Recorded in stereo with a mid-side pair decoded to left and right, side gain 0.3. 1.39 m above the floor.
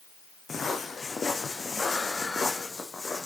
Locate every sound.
0.5 s footsteps: 50° left, 4.5 m; by 3.3 s 30° left, 4.5 m